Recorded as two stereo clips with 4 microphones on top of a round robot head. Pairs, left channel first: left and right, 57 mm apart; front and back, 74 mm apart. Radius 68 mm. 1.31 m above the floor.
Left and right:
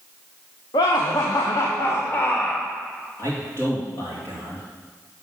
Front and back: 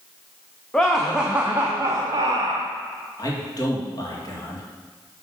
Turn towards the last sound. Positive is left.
turn(degrees=35)